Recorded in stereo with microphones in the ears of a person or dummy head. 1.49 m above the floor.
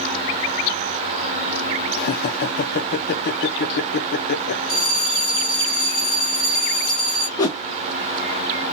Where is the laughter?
70° left (ahead or behind), 0.6 m.